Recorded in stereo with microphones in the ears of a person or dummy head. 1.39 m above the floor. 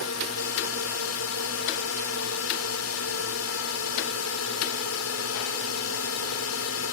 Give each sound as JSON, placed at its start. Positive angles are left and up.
{"t": 0.0, "sound": "a drone", "side_deg": 80}